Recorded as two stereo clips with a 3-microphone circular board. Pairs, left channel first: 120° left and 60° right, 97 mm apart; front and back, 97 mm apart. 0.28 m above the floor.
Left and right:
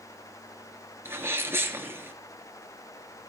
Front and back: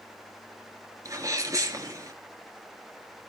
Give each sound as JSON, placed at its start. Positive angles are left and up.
{"t": 1.1, "sound": "a sneeze", "azimuth_deg": -125, "distance_m": 3.5}